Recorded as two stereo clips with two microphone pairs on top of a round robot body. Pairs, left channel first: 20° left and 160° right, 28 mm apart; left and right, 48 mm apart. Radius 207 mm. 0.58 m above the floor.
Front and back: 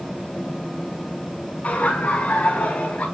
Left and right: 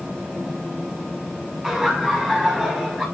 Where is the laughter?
5° left, 7 m.